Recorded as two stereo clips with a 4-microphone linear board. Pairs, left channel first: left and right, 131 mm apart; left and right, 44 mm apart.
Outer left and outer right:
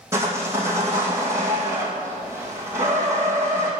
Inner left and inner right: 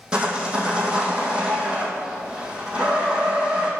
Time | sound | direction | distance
0.1 | sawing | 20° right (ahead or behind) | 1.9 m